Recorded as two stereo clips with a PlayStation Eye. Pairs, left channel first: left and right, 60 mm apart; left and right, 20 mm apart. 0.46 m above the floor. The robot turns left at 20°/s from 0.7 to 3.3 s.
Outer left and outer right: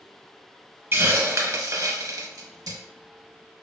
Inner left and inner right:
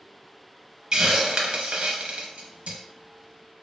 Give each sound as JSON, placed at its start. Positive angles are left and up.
{"t": 0.9, "sound": "a hiss", "side_deg": -40, "distance_m": 0.5}